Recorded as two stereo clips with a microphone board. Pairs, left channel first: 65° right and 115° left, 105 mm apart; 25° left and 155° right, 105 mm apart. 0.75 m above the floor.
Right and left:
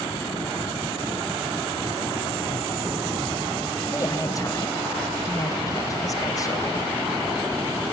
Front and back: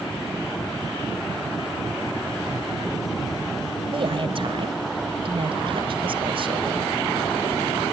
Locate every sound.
3.8 s a woman speaking: 125° right, 3 m